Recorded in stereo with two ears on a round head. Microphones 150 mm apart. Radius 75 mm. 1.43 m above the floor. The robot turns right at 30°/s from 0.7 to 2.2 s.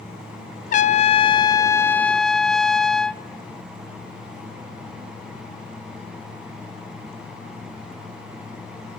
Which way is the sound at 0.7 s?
130° left.